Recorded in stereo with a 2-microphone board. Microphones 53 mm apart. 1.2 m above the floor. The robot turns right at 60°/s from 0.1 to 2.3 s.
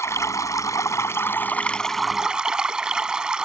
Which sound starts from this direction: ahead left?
Running water, at 0.0 s.